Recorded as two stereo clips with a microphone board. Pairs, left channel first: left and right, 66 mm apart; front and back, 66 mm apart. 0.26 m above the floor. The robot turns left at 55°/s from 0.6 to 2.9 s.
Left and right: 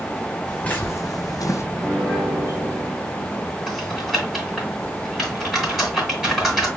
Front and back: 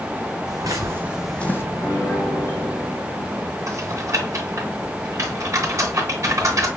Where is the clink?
No clink in this recording.